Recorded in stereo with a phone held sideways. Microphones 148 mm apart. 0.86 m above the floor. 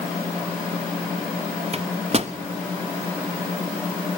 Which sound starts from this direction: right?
A microwave, at 1.7 s.